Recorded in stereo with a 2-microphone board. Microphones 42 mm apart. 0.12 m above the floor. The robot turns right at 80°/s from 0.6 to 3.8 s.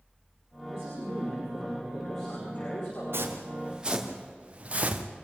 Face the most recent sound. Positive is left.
turn(degrees=-40)  # may be behind; listen again after turning